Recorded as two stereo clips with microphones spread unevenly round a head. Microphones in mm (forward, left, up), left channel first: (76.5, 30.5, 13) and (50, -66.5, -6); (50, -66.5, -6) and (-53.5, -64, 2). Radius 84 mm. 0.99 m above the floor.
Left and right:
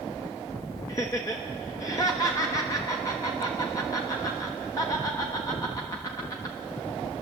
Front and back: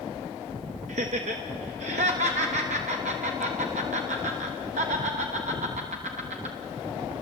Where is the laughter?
150° left, 1.2 m.